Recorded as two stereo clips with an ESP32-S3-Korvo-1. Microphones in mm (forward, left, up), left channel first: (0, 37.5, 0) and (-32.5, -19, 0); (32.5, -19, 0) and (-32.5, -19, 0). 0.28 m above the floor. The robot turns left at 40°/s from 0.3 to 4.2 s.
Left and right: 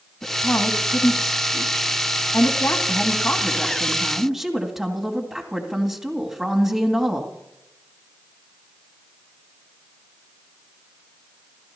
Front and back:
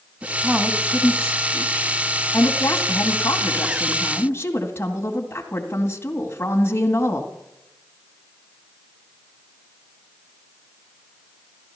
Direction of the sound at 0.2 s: 115° left.